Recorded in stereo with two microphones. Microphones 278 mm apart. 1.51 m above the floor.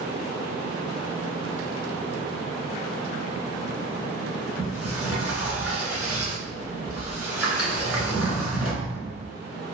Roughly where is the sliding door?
Centre.